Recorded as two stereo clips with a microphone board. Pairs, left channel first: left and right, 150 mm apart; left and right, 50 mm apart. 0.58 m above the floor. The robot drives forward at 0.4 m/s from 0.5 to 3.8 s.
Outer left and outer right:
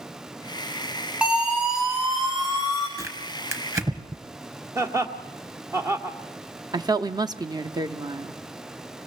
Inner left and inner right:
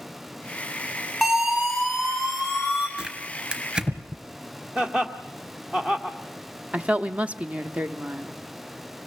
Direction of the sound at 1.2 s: 5° right (ahead or behind).